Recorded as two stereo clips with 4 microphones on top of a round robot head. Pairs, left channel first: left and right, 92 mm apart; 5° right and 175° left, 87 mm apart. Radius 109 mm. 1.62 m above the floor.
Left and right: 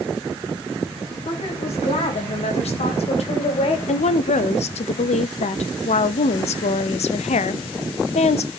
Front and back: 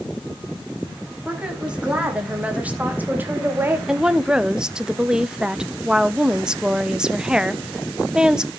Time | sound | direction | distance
1.2 | a woman speaking | 95° left | 3.5 m
3.9 | a woman speaking | 90° left | 0.7 m